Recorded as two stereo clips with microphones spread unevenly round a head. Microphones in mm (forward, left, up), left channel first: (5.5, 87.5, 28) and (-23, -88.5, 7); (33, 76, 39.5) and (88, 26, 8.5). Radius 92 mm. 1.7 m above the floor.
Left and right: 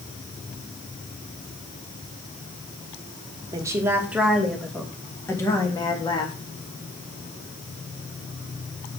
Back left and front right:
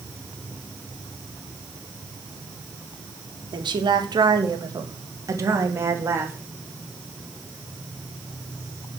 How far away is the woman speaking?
About 2 m.